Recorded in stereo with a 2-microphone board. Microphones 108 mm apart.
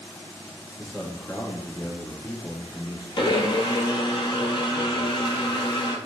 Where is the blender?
50° left (ahead or behind), 0.6 m.